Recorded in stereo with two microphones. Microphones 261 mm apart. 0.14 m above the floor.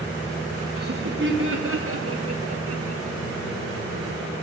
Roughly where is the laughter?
Right.